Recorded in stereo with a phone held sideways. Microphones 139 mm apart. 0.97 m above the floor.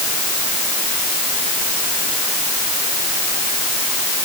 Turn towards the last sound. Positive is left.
No sound to turn to.